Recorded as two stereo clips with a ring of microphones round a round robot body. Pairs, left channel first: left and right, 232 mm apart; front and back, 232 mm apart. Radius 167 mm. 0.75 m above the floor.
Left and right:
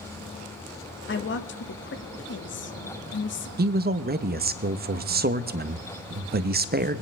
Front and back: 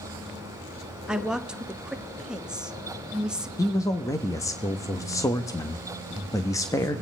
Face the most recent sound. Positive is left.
turn(degrees=-70)